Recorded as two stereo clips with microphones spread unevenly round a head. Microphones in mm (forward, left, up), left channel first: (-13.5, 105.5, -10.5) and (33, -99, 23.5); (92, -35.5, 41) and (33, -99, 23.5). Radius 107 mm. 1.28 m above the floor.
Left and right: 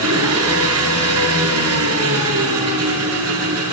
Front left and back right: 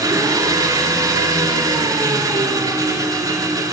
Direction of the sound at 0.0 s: 85° right.